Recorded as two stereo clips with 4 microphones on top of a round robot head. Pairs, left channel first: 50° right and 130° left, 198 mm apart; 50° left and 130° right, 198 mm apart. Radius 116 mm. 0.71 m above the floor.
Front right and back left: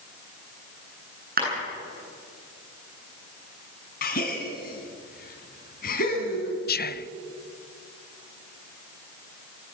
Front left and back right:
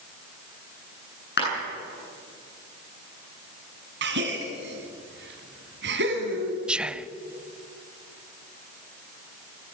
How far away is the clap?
About 9 m.